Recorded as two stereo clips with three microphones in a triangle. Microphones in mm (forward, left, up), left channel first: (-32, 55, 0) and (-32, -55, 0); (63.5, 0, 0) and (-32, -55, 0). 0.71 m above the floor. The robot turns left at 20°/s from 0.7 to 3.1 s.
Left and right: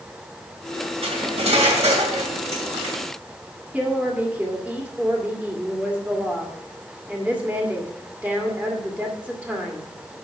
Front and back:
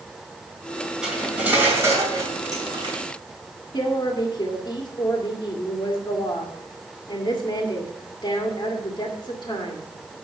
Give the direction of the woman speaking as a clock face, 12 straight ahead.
12 o'clock.